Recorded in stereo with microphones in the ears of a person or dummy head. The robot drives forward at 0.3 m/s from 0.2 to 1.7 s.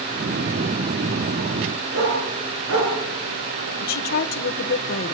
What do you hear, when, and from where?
1.9 s a dog barking: 80° right, 7 m
3.8 s a woman speaking: 50° left (ahead or behind), 1.4 m